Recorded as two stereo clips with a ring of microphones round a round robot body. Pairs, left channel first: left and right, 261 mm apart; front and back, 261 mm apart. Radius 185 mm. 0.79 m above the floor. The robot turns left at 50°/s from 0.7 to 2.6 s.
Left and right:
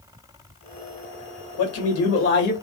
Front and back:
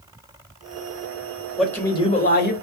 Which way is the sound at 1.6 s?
90° left.